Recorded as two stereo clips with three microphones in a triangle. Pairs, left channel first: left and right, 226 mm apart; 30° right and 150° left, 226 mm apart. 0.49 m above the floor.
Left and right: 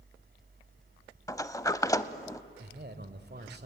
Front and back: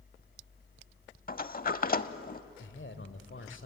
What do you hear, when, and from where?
1.3 s a sliding door: 15° left, 0.6 m
2.6 s a man speaking: 50° right, 1.6 m